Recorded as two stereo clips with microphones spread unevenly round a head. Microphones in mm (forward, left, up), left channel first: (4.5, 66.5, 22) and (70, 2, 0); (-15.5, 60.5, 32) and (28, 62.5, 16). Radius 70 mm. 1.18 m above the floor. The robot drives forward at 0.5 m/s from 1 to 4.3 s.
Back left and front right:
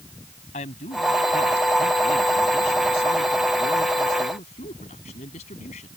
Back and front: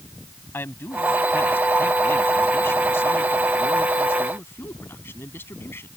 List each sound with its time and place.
0.5 s a man speaking: 155° left; by 5.9 s 160° left